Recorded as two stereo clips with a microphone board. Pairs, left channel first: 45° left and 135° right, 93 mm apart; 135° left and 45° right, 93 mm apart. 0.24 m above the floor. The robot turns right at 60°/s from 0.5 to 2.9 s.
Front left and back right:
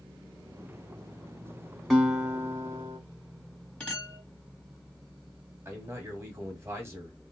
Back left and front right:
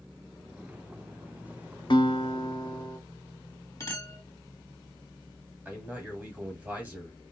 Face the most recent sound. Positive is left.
turn(degrees=-100)